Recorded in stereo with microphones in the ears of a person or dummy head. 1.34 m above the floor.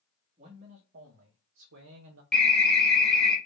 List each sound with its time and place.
0.4 s a man speaking: 30° right (ahead or behind), 1.1 m; by 2.2 s 80° right, 0.8 m
2.3 s an alarm: 5° left (ahead or behind), 1.1 m